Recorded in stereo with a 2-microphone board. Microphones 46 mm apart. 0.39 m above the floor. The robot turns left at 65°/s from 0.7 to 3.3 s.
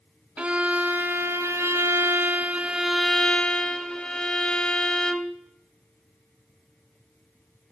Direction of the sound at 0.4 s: 30° right.